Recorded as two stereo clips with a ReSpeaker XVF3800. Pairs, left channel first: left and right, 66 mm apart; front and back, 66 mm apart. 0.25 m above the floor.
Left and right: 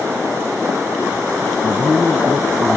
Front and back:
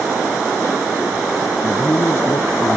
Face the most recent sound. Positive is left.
turn(degrees=-30)